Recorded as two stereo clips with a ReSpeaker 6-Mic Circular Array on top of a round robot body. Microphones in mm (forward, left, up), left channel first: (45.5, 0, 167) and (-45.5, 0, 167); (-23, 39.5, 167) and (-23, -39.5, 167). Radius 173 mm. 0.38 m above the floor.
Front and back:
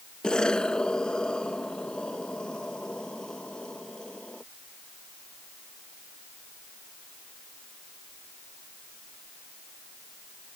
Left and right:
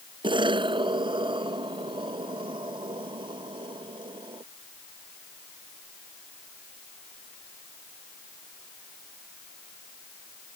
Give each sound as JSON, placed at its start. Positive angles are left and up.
{"t": 0.2, "sound": "an explosion", "azimuth_deg": -80}